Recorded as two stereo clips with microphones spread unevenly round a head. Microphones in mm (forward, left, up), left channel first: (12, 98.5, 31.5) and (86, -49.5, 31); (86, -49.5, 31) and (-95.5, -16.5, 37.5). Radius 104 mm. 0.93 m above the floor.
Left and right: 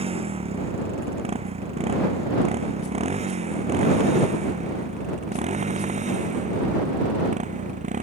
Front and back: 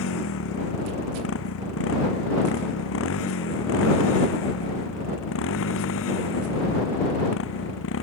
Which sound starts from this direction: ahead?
A motorcycle, at 0.0 s.